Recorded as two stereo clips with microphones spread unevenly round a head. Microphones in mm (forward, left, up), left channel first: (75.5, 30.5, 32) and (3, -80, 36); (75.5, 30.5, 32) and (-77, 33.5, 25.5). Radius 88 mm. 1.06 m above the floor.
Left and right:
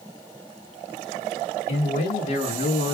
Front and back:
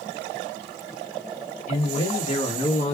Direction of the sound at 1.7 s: 40° left.